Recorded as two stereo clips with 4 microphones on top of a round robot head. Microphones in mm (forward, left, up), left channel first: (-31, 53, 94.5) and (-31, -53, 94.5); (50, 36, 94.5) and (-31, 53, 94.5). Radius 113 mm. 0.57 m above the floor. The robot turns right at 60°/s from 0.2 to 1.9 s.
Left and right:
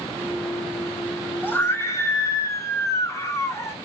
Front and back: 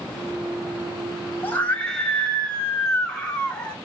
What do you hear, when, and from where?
1.4 s a scream: 30° left, 0.7 m; by 3.8 s 60° left, 0.7 m